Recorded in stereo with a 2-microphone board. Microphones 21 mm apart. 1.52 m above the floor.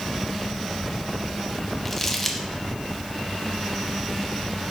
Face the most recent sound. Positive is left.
turn(degrees=15)  # may be behind; listen again after turning